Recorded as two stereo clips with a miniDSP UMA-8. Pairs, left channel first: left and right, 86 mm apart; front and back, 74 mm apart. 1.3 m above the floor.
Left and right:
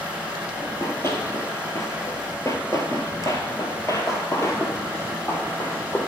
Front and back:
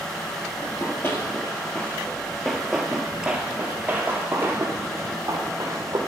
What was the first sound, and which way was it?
Running footsteps, 40° left.